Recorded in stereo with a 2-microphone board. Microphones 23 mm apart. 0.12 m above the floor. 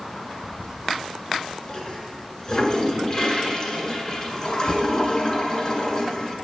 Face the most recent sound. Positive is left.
turn(degrees=30)  # may be behind; listen again after turning